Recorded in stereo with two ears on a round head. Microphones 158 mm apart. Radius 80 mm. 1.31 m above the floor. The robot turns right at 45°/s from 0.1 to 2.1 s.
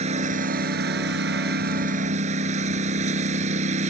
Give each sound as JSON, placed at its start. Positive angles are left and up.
{"t": 0.0, "sound": "a lawn mower", "azimuth_deg": -135}